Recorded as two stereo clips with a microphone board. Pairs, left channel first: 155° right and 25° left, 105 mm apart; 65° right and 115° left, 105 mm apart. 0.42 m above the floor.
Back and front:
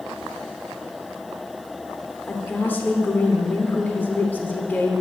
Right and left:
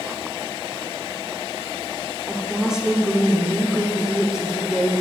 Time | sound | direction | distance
2.3 | a woman speaking | straight behind | 0.7 m